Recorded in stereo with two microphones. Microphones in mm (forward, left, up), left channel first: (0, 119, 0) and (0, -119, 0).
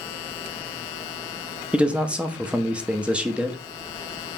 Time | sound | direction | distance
1.7 | a man speaking | 5° right (ahead or behind) | 0.6 m